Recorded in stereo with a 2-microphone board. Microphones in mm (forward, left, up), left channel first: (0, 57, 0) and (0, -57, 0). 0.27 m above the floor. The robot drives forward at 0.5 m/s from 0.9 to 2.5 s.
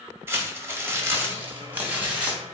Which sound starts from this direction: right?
Crumpling, at 0.3 s.